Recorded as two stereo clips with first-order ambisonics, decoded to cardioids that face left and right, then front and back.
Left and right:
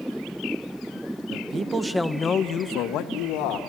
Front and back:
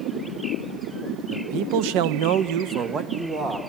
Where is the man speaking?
145° right, 0.9 m; by 3.6 s 110° left, 1.4 m.